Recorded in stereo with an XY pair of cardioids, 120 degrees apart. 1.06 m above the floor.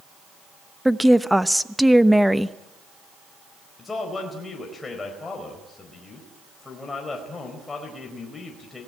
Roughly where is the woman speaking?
Ahead.